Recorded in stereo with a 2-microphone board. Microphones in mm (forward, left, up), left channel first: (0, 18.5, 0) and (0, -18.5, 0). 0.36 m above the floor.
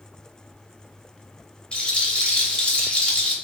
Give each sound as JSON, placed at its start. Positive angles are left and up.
{"t": 1.7, "sound": "a rattle", "side_deg": 25, "distance_m": 0.5}